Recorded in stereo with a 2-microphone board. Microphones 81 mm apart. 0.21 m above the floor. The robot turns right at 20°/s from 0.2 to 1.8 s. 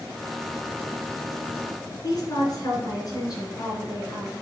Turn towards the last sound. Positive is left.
turn(degrees=50)  # may be behind; listen again after turning